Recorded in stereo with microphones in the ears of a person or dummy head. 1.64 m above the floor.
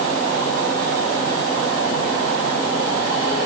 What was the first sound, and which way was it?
Only background noise.